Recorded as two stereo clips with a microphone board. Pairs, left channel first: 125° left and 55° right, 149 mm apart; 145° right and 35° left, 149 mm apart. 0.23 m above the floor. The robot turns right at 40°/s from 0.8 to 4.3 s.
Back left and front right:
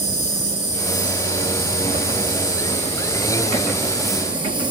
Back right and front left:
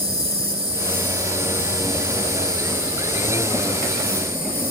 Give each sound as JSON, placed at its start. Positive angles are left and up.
{"t": 0.0, "sound": "an insect", "azimuth_deg": 80, "distance_m": 5.0}